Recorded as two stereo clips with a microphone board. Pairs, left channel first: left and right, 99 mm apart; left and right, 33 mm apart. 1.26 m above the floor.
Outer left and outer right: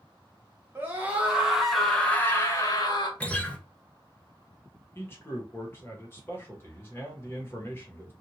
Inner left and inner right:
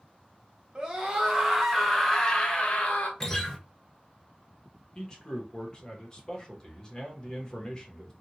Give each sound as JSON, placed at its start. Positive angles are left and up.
{"t": 0.8, "sound": "a scream", "side_deg": -25, "distance_m": 1.4}
{"t": 3.2, "sound": "a guitar", "side_deg": 15, "distance_m": 0.6}
{"t": 5.0, "sound": "a man speaking", "side_deg": 25, "distance_m": 1.2}